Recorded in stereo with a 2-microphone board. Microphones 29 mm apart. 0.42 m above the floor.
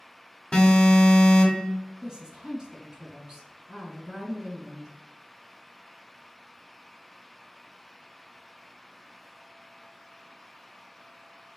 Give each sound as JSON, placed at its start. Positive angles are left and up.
{"t": 0.5, "sound": "an alarm", "side_deg": 35, "distance_m": 1.3}
{"t": 2.0, "sound": "a woman speaking", "side_deg": -25, "distance_m": 1.8}